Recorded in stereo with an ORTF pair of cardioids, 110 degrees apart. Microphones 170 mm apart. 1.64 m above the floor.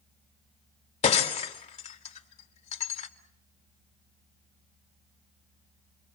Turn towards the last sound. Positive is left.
turn(degrees=45)